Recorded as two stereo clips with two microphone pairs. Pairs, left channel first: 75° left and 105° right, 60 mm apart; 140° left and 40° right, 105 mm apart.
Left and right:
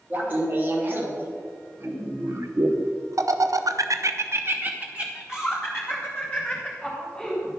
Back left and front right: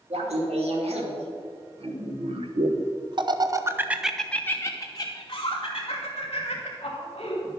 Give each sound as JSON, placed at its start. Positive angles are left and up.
{"t": 0.1, "sound": "laughter", "azimuth_deg": -50, "distance_m": 2.5}